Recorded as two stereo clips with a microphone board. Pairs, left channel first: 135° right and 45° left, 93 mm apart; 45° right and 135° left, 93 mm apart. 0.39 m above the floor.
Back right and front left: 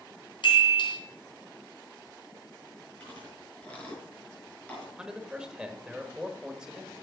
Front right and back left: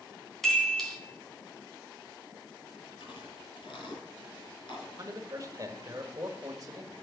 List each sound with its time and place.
0.4 s a chime: 130° right, 3 m
3.0 s chewing: 60° right, 4.5 m
5.0 s a man speaking: 120° left, 1.2 m